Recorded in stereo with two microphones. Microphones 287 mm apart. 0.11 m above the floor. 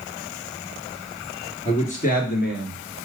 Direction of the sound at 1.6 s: 20° left (ahead or behind).